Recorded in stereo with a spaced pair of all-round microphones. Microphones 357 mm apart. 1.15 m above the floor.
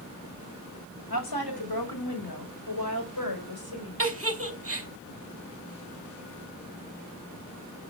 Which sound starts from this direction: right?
A giggle, at 4.0 s.